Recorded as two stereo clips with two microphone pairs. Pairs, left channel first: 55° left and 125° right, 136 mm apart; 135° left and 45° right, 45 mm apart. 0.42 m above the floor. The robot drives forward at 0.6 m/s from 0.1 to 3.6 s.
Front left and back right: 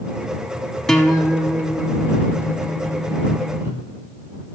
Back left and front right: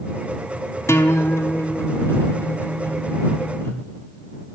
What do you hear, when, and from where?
0.9 s a guitar: 145° left, 0.8 m; by 3.8 s 170° left, 2.5 m